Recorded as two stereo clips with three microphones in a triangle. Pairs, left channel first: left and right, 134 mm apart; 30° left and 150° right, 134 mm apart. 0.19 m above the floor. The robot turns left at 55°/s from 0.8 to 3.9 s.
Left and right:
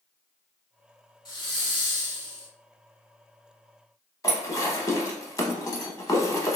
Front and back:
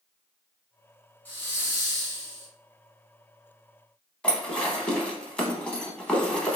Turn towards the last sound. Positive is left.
turn(degrees=100)